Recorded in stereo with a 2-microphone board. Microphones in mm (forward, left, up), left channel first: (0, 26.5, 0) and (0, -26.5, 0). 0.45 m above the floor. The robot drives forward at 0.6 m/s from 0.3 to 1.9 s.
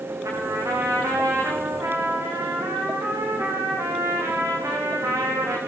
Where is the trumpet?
85° right, 9 m; by 5.6 s 90° right, 9 m.